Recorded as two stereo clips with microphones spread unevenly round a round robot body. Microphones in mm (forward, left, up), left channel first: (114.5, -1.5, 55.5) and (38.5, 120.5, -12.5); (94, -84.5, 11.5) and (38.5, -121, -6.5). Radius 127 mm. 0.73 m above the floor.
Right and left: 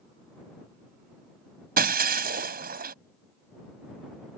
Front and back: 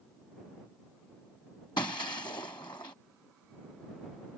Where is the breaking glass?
100° left.